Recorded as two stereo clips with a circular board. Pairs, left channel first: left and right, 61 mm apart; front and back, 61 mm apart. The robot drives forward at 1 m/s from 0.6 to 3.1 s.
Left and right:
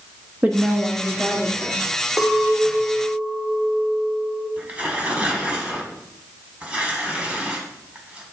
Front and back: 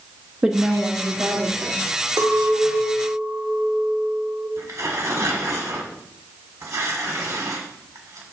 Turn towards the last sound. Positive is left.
turn(degrees=-155)